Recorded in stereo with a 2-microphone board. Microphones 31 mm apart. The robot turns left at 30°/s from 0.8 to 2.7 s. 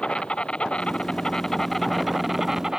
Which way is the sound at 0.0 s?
35° left.